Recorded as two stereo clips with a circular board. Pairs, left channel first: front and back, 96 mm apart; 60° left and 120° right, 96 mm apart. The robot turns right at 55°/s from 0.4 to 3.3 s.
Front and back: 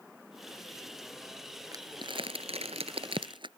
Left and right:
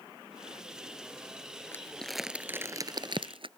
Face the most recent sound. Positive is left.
turn(degrees=-145)